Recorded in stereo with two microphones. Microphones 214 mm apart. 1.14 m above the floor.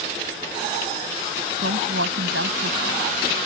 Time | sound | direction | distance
1.6 | a woman speaking | 75° right (ahead or behind) | ?